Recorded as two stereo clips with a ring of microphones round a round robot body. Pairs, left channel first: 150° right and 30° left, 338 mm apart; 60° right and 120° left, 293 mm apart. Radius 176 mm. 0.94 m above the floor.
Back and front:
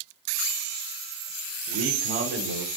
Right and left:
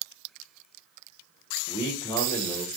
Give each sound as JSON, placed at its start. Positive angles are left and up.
{"t": 1.7, "sound": "a man speaking", "azimuth_deg": 15, "distance_m": 0.9}